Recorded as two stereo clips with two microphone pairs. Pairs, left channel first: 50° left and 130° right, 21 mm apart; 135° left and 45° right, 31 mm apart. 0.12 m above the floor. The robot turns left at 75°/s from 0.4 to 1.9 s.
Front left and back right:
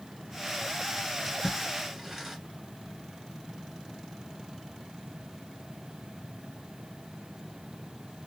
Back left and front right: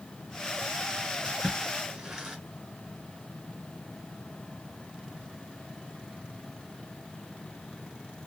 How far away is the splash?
About 1.8 m.